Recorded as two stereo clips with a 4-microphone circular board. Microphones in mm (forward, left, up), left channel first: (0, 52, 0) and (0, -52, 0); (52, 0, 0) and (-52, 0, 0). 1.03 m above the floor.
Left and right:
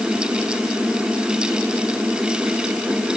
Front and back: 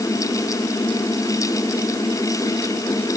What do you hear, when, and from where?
Only background noise.